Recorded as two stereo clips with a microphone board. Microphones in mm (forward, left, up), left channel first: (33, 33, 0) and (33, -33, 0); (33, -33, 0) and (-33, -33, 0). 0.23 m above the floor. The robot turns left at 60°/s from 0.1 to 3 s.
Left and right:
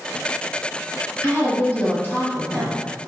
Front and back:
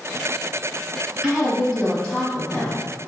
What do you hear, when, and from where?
1.2 s a woman speaking: 120° left, 1.4 m; by 2.8 s 25° left, 1.4 m